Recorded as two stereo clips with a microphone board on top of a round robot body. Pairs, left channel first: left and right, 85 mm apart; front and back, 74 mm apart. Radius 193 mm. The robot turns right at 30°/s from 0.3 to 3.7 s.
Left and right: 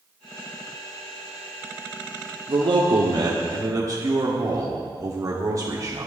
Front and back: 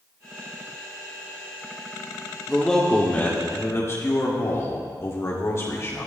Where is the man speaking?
85° right, 2 m; by 6.1 s 50° right, 2 m.